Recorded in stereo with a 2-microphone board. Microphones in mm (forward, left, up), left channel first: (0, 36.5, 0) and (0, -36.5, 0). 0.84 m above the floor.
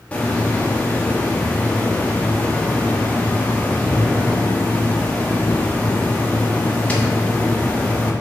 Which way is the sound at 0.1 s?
20° left (ahead or behind).